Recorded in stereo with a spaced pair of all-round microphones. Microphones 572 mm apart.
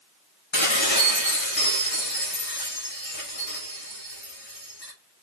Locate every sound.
0.5 s dishes clattering: 50° left (ahead or behind), 6 m